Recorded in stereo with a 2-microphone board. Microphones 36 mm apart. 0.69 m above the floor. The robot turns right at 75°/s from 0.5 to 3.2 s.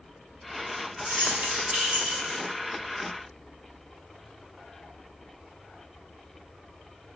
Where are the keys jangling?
100° right, 0.7 m; by 2.4 s 5° left, 0.7 m.